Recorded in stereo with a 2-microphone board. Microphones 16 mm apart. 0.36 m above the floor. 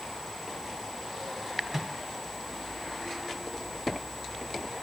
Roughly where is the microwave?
Centre.